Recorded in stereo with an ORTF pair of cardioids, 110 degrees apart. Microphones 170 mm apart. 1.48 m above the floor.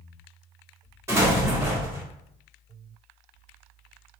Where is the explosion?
15° right, 1.2 m.